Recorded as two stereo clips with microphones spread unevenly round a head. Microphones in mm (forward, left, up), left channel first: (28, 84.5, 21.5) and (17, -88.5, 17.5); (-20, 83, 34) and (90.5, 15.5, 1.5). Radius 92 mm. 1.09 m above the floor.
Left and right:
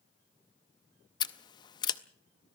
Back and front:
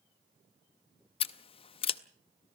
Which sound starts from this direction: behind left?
Scissors, at 1.2 s.